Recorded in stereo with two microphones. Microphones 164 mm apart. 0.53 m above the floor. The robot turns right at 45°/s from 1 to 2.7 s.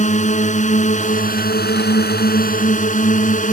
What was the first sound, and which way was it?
A drone, 50° left.